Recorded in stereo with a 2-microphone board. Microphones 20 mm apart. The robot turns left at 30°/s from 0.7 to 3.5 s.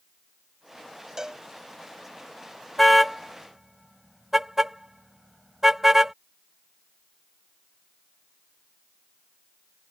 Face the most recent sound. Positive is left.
turn(degrees=-20)  # may be behind; listen again after turning